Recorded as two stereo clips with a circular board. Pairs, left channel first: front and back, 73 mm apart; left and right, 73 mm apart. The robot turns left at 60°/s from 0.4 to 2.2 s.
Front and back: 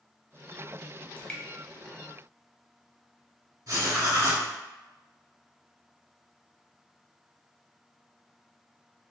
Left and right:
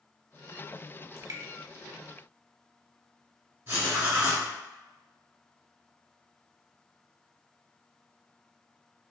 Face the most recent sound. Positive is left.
turn(degrees=-150)